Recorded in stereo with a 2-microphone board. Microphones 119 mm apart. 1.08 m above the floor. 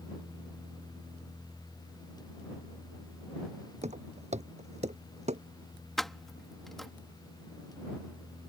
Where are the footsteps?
70° right (ahead or behind); by 5.4 s 65° right (ahead or behind).